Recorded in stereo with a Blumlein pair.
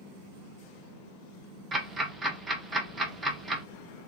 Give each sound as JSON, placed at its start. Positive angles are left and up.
{"t": 1.7, "sound": "ticking", "azimuth_deg": -15, "distance_m": 0.7}